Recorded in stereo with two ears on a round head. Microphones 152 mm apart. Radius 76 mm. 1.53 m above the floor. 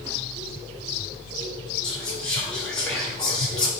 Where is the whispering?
5° left (ahead or behind), 1.2 m.